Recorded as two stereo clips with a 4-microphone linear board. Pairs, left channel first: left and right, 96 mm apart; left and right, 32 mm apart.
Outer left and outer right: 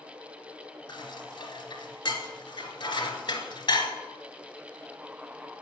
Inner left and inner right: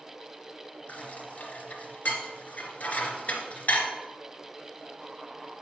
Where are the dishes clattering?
50° left (ahead or behind), 1.4 m.